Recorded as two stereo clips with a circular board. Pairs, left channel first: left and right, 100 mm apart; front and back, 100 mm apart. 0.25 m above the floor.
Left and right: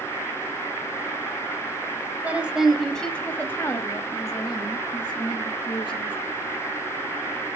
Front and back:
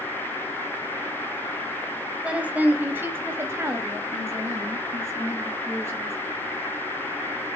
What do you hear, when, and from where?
2.2 s a woman speaking: 130° right, 1.5 m; by 6.2 s 120° left, 3.5 m